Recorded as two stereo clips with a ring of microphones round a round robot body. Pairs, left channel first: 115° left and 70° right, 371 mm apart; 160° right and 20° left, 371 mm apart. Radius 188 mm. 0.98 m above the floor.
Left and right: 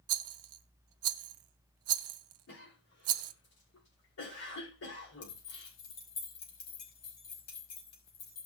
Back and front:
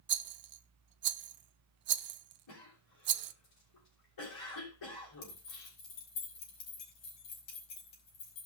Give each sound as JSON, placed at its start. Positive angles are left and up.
{"t": 0.1, "sound": "a rattle", "azimuth_deg": -30, "distance_m": 0.6}
{"t": 2.5, "sound": "a cough", "azimuth_deg": 165, "distance_m": 5.5}
{"t": 5.2, "sound": "keys jangling", "azimuth_deg": 165, "distance_m": 5.5}